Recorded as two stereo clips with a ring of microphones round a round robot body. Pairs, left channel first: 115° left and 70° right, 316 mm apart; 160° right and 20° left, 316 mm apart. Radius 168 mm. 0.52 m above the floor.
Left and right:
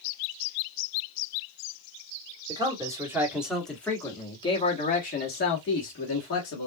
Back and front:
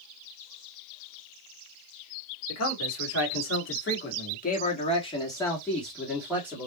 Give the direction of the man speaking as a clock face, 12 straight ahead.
5 o'clock.